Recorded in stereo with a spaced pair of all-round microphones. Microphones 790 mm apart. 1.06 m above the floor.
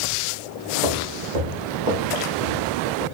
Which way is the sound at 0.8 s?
75° right (ahead or behind).